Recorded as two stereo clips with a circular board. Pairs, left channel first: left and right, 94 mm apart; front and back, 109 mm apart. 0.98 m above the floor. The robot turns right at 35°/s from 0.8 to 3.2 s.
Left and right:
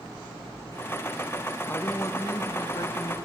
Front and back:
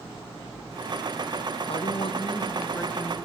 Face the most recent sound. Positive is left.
turn(degrees=75)